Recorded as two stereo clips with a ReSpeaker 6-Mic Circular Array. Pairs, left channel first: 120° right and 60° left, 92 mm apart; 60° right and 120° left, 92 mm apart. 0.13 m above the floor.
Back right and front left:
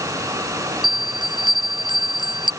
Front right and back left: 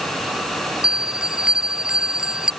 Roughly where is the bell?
Ahead left.